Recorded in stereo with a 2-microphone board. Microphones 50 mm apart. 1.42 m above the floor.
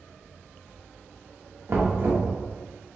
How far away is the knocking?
About 1.1 m.